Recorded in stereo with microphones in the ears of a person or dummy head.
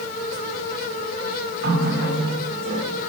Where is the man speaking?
I don't hear a man speaking.